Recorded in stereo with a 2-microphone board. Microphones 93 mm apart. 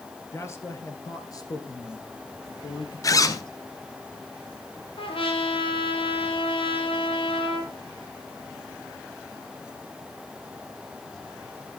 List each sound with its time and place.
0.3 s a man speaking: 30° left (ahead or behind), 2 m; by 3.5 s 60° left (ahead or behind), 2.5 m
3.0 s a zipper: 40° left (ahead or behind), 1.1 m
5.0 s a trumpet: 75° left (ahead or behind), 2.5 m